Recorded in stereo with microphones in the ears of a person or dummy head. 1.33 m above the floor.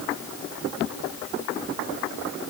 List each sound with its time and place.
Only background noise.